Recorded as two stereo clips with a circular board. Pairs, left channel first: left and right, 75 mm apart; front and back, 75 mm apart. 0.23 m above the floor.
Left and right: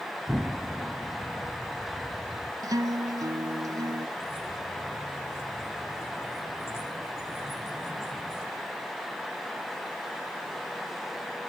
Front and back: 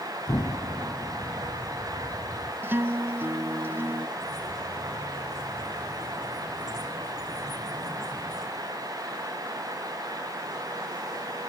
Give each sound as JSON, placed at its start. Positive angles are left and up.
{"t": 0.3, "sound": "an explosion", "azimuth_deg": -10, "distance_m": 0.8}
{"t": 2.6, "sound": "a guitar", "azimuth_deg": -120, "distance_m": 0.7}
{"t": 4.2, "sound": "keys jangling", "azimuth_deg": 145, "distance_m": 9.5}